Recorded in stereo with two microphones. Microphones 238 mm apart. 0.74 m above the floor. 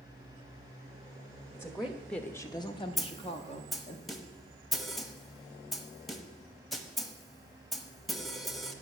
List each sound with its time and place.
1.5 s a woman speaking: 10° right (ahead or behind), 1.0 m; by 4.0 s 25° left (ahead or behind), 1.6 m
3.0 s a snare drum: centre (ahead or behind), 0.9 m